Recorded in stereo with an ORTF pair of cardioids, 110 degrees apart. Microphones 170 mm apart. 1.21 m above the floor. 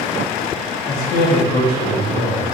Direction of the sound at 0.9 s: 50° left.